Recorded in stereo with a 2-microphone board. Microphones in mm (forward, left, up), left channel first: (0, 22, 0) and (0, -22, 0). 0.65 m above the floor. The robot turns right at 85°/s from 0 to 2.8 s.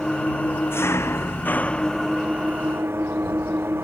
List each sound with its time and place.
0.0 s an engine running: 10° left; by 3.8 s 110° right